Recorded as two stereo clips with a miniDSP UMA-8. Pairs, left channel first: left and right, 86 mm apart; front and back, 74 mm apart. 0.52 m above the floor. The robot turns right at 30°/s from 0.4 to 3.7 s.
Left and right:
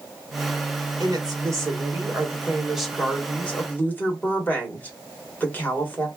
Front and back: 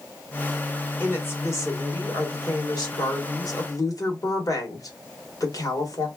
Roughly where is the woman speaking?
Ahead right.